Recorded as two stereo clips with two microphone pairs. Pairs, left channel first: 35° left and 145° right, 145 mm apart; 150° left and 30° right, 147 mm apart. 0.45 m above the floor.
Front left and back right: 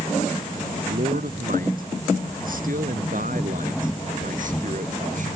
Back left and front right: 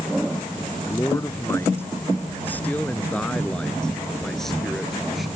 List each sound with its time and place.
0.9 s a man speaking: 145° right; by 5.3 s 120° right